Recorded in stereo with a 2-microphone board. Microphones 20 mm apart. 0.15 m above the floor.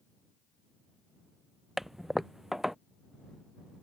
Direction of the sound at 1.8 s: 5° right (ahead or behind).